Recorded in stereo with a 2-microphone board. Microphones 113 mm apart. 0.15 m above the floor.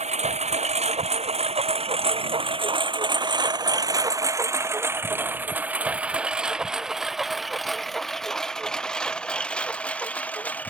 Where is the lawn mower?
80° right; by 10.7 s 15° left (ahead or behind).